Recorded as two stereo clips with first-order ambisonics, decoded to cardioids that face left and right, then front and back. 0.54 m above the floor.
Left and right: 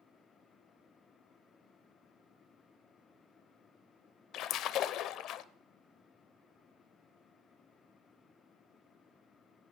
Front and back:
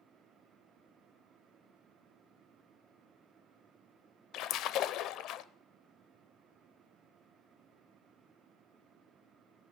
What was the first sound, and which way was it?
A splash, 45° left.